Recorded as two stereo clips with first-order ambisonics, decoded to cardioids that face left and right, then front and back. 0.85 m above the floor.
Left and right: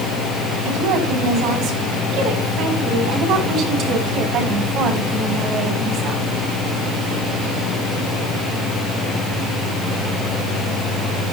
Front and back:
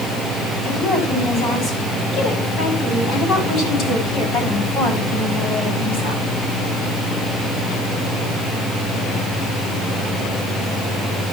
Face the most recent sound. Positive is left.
turn(degrees=-35)